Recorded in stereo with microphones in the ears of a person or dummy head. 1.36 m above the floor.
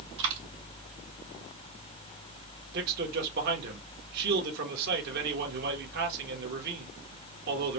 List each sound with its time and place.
0.2 s a dropped coin: 65° right (ahead or behind), 2 m
2.7 s a man speaking: 60° right (ahead or behind), 1.4 m